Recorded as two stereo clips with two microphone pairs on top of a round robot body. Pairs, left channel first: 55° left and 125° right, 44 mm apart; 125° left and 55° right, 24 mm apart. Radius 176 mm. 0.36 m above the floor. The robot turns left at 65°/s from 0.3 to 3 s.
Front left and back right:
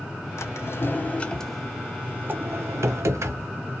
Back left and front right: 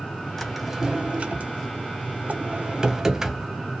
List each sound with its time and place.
0.4 s a drawer: 45° left, 0.6 m; by 3.5 s 125° right, 0.6 m